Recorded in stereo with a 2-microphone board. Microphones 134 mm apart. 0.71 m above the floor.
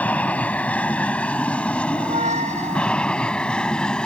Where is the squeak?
60° right (ahead or behind).